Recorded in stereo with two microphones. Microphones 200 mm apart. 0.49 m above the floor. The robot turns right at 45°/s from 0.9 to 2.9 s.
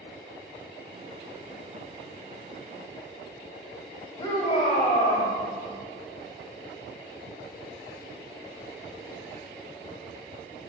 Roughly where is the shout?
Left.